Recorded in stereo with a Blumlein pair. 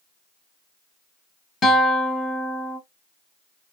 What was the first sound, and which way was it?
A guitar, 20° left.